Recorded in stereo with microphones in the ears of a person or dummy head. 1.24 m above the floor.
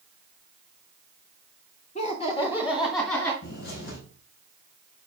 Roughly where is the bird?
Left.